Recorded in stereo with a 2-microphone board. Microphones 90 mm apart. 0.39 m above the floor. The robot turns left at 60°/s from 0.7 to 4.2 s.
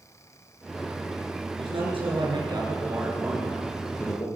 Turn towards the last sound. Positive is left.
turn(degrees=135)